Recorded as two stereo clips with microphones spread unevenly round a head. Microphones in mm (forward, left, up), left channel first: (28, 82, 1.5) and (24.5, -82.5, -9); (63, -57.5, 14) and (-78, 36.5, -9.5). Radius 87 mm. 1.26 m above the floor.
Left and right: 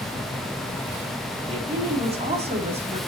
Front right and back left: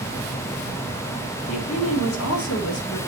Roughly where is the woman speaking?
Ahead right.